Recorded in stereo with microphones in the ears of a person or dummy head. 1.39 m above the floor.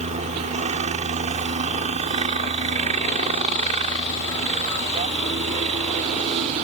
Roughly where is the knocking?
I don't hear knocking.